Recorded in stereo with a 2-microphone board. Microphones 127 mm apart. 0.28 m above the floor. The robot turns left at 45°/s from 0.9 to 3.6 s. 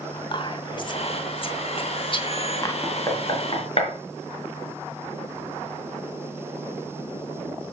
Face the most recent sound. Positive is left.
turn(degrees=50)  # may be behind; listen again after turning